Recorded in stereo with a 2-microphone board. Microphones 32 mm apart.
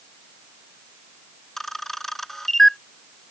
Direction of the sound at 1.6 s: 10° left (ahead or behind).